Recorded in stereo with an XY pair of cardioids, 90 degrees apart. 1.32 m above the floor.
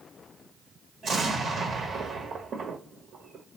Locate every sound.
1.0 s an explosion: 60° right, 1.2 m